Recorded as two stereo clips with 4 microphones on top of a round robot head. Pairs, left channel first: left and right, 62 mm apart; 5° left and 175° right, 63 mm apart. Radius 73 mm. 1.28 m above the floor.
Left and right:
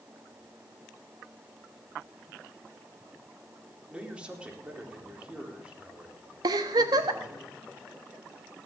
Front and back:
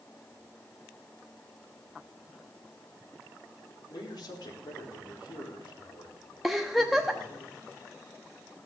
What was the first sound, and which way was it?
A man speaking, 15° right.